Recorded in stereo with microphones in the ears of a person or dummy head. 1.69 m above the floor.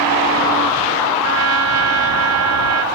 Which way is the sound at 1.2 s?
80° right.